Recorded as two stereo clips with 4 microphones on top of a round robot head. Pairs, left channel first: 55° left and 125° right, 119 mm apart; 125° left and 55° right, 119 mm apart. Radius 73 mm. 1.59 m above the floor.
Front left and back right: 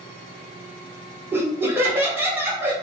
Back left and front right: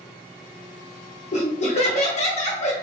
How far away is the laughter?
About 0.9 m.